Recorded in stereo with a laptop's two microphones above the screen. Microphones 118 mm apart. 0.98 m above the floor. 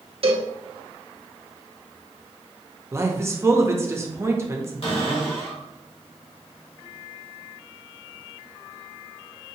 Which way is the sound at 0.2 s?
55° right (ahead or behind).